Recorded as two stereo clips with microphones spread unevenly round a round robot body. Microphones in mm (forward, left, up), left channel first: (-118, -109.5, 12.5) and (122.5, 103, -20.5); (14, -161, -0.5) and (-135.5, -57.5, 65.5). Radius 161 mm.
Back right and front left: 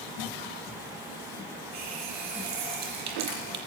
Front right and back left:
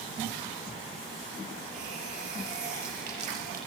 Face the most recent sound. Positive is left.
turn(degrees=85)